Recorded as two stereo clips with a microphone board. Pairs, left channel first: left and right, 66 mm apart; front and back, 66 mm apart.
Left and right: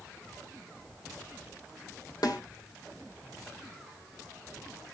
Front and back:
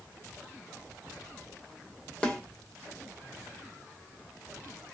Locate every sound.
2.2 s a snare drum: 70° left, 2 m